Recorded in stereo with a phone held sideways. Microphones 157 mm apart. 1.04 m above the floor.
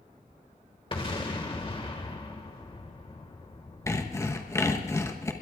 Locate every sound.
0.9 s an explosion: 35° left (ahead or behind), 1.8 m
3.9 s sawing: 20° left (ahead or behind), 1.0 m